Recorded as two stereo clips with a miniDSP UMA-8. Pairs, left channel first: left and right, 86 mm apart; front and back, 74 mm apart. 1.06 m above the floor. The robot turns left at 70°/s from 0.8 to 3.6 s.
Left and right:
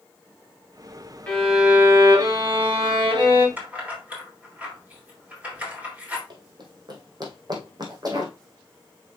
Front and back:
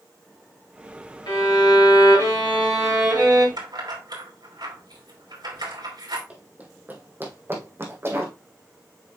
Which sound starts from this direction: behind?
Keys jangling, at 3.6 s.